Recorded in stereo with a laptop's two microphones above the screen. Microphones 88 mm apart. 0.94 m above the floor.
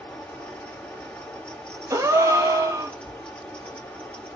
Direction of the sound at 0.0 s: 15° left (ahead or behind).